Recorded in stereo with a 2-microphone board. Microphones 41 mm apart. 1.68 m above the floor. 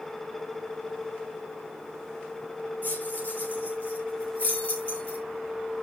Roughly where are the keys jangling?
Left.